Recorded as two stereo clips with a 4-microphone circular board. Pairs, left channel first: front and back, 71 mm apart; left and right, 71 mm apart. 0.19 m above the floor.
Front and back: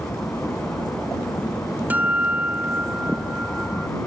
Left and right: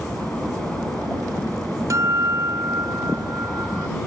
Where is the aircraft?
25° left.